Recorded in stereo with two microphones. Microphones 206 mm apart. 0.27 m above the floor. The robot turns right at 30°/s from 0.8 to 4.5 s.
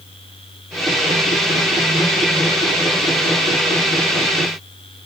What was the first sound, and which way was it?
Only background noise.